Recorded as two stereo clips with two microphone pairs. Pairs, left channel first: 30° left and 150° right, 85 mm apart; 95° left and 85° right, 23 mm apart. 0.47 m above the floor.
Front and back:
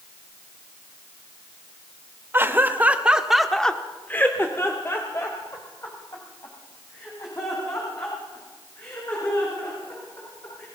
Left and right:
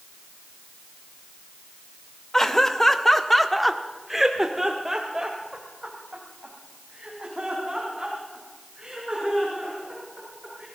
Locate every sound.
2.3 s laughter: 155° left, 1.8 m; by 10.7 s 25° right, 8.5 m